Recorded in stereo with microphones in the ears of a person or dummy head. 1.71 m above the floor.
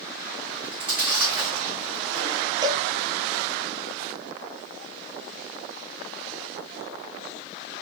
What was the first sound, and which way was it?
Chewing, 20° right (ahead or behind).